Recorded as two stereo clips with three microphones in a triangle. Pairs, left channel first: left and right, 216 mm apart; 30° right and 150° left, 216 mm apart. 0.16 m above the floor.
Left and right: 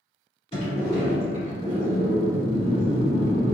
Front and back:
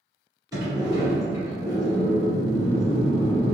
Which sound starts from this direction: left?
A sliding door, at 0.5 s.